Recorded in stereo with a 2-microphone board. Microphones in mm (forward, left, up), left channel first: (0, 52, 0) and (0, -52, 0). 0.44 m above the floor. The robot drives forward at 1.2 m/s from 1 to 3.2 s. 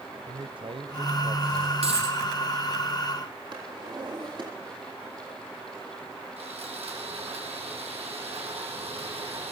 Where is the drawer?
50° right (ahead or behind), 9.5 m.